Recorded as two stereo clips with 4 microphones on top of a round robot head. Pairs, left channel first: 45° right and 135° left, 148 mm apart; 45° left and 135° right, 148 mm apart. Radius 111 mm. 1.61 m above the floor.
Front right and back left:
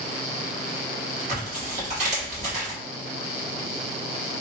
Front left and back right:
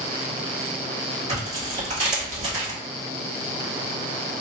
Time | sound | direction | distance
1.3 | tearing paper | straight behind | 2 m